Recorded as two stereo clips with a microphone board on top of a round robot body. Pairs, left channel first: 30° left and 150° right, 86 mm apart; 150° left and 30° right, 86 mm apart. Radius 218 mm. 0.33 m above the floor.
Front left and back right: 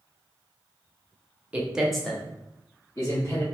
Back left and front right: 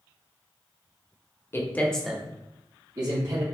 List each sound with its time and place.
1.5 s a man speaking: 155° left, 1.3 m; by 3.5 s 10° right, 2 m